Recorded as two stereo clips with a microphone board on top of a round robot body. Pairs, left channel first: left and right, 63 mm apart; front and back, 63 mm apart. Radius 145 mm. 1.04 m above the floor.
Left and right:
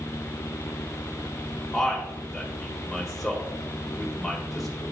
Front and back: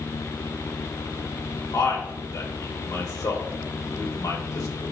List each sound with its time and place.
1.7 s a man speaking: 5° left, 2 m